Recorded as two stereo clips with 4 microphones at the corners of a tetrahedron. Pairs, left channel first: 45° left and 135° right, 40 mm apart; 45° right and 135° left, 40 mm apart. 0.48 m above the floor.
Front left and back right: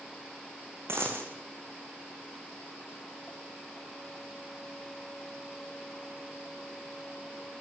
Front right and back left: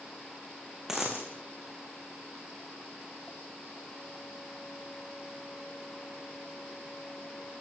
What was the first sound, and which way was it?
A dropped coin, 145° right.